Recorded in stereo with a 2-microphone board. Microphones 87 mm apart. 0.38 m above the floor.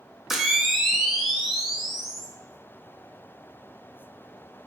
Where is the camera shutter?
5° right (ahead or behind), 0.5 m.